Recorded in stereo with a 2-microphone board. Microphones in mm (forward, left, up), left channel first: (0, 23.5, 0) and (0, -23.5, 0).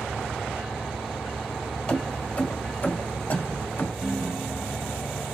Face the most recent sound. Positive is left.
turn(degrees=-20)  # may be behind; listen again after turning